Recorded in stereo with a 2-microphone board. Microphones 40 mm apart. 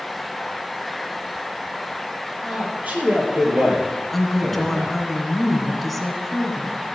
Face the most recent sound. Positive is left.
turn(degrees=5)  # may be behind; listen again after turning